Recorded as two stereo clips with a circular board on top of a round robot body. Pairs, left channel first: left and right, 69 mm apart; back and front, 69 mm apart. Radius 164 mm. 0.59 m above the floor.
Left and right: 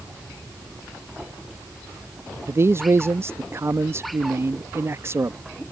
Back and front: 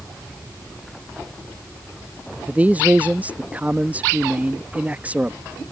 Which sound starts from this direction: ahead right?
A man speaking, at 2.5 s.